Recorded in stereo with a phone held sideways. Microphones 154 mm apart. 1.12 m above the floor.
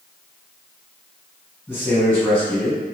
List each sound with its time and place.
1.7 s a man speaking: 10° left (ahead or behind), 1.7 m